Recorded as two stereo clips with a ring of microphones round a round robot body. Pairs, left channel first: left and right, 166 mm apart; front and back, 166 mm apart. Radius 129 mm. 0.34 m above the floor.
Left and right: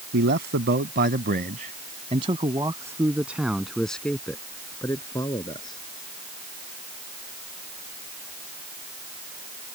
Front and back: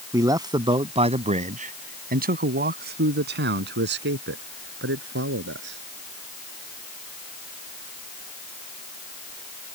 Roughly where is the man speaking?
Right.